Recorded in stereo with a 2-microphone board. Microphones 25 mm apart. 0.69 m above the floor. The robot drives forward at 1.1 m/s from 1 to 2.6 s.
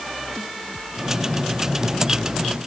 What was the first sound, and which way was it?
Only background noise.